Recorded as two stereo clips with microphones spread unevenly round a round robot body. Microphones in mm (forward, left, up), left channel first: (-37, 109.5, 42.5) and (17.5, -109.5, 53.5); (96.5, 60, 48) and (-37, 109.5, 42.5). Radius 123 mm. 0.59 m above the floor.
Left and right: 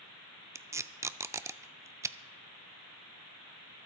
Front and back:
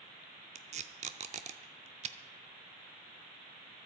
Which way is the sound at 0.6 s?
155° right.